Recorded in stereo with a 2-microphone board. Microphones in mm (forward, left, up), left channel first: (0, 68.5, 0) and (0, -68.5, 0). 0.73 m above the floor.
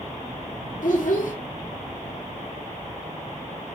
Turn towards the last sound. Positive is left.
turn(degrees=75)  # may be behind; listen again after turning